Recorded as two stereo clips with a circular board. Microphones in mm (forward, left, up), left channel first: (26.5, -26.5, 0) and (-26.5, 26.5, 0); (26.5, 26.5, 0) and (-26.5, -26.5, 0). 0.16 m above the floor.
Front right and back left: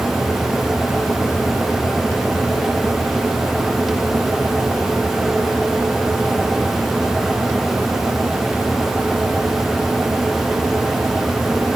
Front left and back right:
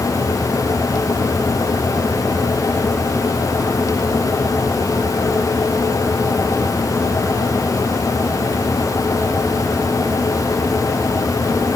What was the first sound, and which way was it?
Only background noise.